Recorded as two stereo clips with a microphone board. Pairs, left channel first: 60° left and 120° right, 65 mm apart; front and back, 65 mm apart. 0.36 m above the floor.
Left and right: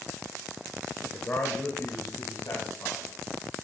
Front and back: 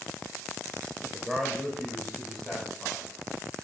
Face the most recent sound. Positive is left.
turn(degrees=80)